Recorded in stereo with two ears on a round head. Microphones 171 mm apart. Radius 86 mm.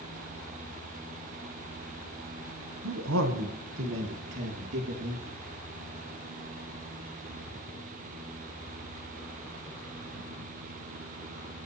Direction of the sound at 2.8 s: 85° right.